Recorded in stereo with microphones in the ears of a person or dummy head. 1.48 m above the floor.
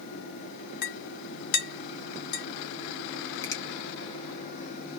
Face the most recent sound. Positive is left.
turn(degrees=15)  # may be behind; listen again after turning